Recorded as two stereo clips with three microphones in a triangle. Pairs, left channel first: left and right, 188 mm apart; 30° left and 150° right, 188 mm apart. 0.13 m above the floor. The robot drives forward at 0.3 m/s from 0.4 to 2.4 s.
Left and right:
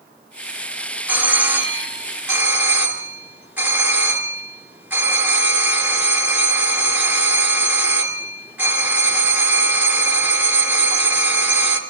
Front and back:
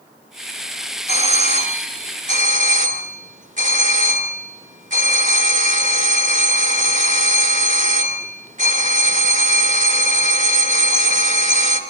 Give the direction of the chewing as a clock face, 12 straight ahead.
I don't hear chewing.